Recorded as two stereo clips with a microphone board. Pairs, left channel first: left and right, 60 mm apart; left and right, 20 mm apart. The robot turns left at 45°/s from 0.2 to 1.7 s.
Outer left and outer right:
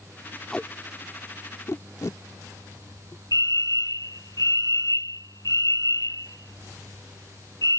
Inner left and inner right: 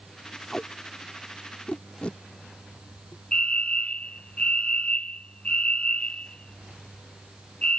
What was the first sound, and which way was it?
Tape being pulled, 15° left (ahead or behind).